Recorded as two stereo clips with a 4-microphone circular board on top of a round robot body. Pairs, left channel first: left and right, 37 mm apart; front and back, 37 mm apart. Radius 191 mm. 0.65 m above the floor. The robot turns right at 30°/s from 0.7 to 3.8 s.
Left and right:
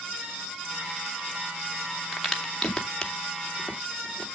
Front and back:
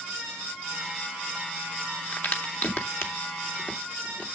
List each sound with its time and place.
2.1 s a crack: 10° right, 2.5 m; by 4.3 s 40° left, 2.5 m